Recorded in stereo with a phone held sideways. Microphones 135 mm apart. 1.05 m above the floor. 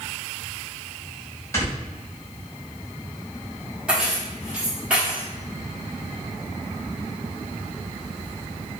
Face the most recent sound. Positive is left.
turn(degrees=-10)  # may be behind; listen again after turning